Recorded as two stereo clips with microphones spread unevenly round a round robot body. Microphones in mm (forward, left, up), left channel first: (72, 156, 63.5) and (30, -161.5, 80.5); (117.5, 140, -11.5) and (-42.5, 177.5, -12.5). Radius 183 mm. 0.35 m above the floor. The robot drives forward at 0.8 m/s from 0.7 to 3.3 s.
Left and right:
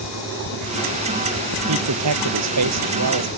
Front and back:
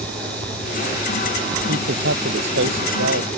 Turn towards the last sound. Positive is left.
turn(degrees=-150)